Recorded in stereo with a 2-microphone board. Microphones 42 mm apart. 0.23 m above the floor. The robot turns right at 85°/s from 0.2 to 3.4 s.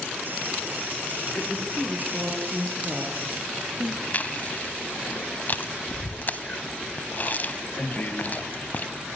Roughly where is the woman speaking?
Behind left.